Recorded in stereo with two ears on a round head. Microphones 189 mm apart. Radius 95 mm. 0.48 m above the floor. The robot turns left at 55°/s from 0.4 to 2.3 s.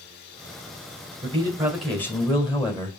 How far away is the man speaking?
About 1.8 m.